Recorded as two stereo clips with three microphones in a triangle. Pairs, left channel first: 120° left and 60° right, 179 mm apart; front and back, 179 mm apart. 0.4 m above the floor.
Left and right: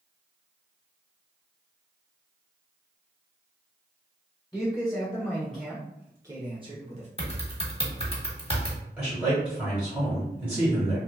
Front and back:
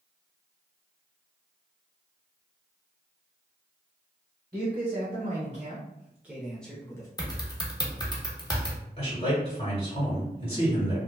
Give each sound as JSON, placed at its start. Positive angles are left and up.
{"t": 4.5, "sound": "a man speaking", "azimuth_deg": 180, "distance_m": 1.3}
{"t": 7.2, "sound": "typing on a keyboard", "azimuth_deg": 65, "distance_m": 0.8}
{"t": 9.0, "sound": "a man speaking", "azimuth_deg": 10, "distance_m": 1.6}